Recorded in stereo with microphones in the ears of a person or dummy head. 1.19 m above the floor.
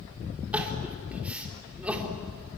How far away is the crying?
About 3 m.